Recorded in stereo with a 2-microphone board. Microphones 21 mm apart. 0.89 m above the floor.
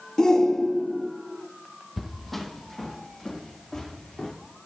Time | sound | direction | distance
0.2 | a shout | 30° left (ahead or behind) | 1.1 m
2.0 | footsteps | centre (ahead or behind) | 1.3 m